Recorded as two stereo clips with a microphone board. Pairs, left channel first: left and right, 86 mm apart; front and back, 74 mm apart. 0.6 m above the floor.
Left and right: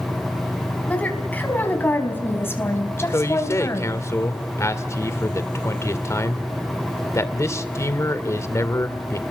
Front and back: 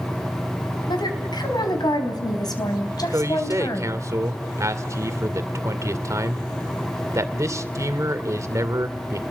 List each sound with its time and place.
0.9 s a woman speaking: 15° left, 4.5 m; by 4.0 s 40° left, 3.5 m
3.1 s a man speaking: 140° left, 2 m